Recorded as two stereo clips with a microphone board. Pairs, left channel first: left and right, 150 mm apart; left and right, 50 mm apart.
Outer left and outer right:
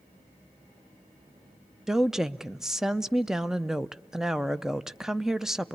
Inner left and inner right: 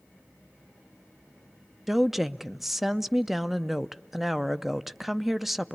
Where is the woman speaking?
5° right (ahead or behind), 0.6 m.